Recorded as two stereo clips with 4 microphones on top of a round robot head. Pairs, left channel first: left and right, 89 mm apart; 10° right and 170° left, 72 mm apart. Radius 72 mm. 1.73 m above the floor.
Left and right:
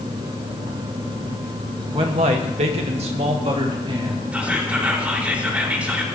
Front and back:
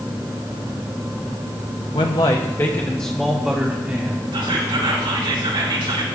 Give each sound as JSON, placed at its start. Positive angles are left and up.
{"t": 1.9, "sound": "a man speaking", "azimuth_deg": -45, "distance_m": 1.5}
{"t": 4.3, "sound": "whispering", "azimuth_deg": -165, "distance_m": 4.5}